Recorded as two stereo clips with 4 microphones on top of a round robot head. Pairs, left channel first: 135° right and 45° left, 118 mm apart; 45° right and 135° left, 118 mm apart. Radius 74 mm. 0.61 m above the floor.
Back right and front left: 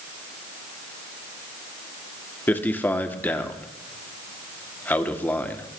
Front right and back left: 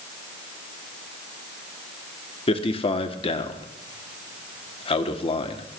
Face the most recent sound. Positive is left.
turn(degrees=-65)